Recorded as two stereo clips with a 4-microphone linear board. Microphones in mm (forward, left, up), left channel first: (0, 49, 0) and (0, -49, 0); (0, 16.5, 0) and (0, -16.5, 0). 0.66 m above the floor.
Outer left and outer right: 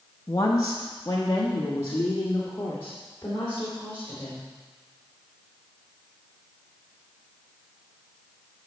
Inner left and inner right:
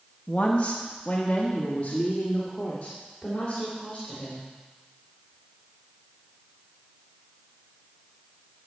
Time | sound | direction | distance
0.3 | a woman speaking | 30° left (ahead or behind) | 0.9 m